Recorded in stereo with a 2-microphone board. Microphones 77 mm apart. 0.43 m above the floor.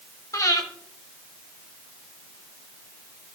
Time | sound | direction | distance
0.3 | breathing | 45° left (ahead or behind) | 1.5 m